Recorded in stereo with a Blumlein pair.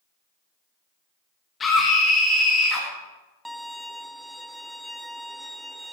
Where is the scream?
15° left, 1.9 m.